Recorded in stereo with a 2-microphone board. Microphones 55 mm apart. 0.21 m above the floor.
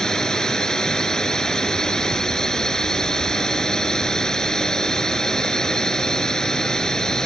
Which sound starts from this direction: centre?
A drone, at 0.0 s.